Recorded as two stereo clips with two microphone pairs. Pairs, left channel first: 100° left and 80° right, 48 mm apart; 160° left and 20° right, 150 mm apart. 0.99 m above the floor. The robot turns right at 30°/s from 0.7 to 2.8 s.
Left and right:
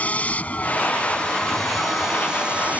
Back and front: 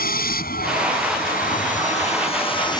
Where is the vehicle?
160° left; by 2.8 s 135° right.